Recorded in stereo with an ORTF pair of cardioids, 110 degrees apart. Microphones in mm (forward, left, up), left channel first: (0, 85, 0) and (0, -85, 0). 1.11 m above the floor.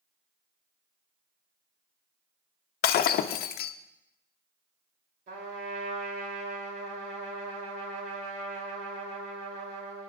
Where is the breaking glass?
70° left, 0.6 m.